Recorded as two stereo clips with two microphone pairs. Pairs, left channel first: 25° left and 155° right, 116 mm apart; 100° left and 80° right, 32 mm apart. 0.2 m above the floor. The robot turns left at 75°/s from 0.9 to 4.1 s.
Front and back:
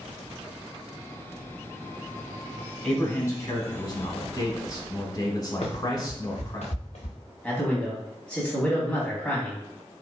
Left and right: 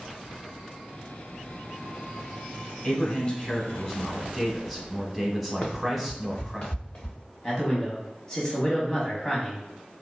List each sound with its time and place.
2.8 s a man speaking: 110° left, 1.1 m; by 6.6 s 15° left, 1.1 m
5.6 s running footsteps: 55° left, 1.2 m; by 7.2 s 50° left, 2.5 m
7.4 s a man speaking: 100° left, 1.0 m